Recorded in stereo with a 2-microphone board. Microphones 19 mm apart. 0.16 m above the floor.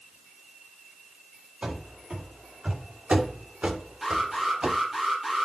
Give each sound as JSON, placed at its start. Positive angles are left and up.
{"t": 1.6, "sound": "running footsteps", "side_deg": -55, "distance_m": 4.0}
{"t": 4.0, "sound": "an alarm", "side_deg": -15, "distance_m": 4.5}